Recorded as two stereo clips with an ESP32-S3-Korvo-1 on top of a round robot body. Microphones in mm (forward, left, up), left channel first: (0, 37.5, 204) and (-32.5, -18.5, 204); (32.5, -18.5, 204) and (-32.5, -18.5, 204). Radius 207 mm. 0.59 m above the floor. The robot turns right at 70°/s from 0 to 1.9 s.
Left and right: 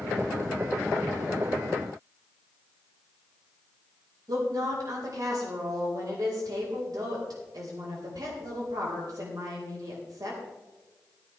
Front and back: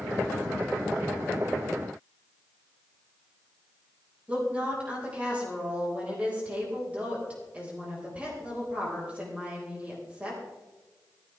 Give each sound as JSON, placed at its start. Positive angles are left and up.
{"t": 4.3, "sound": "a woman speaking", "azimuth_deg": -110, "distance_m": 4.0}